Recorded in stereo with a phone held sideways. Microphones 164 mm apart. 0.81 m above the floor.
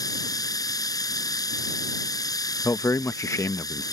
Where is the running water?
20° left (ahead or behind).